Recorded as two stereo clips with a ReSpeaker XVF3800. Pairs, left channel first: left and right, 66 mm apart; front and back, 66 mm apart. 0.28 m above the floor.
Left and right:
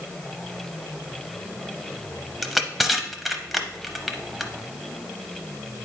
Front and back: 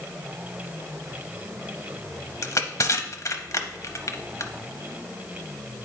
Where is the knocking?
No knocking in this recording.